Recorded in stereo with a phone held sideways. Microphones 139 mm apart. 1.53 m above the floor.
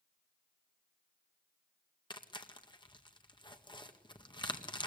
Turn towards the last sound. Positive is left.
turn(degrees=35)  # may be behind; listen again after turning